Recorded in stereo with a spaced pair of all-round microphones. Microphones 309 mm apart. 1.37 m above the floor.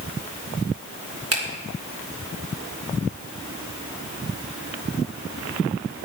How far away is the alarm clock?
No alarm clock in this recording.